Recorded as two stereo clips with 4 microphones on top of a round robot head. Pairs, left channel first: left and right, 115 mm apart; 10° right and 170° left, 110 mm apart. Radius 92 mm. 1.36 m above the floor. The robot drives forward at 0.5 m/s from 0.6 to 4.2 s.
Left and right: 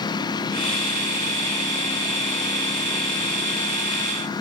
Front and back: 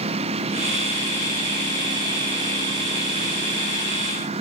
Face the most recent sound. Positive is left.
turn(degrees=145)